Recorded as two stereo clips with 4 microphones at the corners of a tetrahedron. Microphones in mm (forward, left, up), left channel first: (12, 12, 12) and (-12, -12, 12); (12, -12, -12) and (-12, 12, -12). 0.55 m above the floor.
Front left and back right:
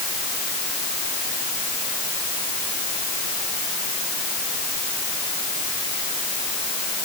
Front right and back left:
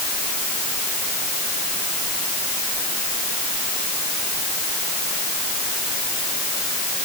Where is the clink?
I don't hear a clink.